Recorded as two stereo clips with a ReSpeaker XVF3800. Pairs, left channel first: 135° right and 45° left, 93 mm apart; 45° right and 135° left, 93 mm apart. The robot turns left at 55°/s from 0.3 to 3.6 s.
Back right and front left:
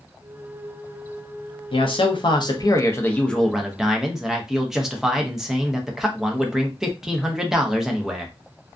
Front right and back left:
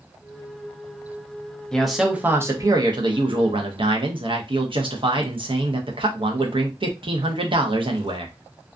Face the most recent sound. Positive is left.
turn(degrees=130)